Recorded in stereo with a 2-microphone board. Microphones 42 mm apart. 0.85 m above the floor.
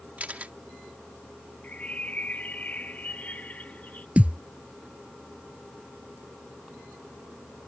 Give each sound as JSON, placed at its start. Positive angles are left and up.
{"t": 0.2, "sound": "a camera shutter", "side_deg": -35}
{"t": 1.6, "sound": "a bird", "side_deg": 40}
{"t": 4.2, "sound": "a thud", "side_deg": -30}